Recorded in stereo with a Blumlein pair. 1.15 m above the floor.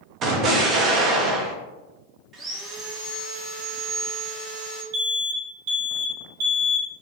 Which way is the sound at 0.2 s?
30° right.